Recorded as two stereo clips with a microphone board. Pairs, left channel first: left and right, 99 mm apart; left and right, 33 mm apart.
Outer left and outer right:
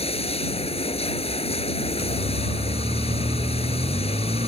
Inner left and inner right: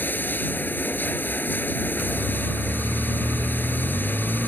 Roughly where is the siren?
Right.